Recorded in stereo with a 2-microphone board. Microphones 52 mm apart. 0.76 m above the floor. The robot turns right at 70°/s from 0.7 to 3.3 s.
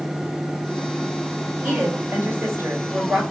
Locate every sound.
1.6 s a woman speaking: 140° right, 4 m; by 3.2 s 30° right, 4 m